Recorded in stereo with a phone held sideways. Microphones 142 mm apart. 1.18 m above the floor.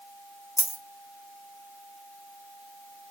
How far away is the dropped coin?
About 0.7 m.